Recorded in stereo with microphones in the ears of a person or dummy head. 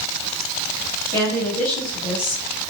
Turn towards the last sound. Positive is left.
turn(degrees=15)  # may be behind; listen again after turning